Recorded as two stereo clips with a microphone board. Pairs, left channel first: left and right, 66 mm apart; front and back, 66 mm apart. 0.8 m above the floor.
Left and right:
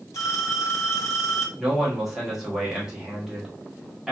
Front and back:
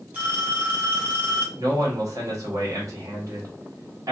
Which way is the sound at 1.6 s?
175° right.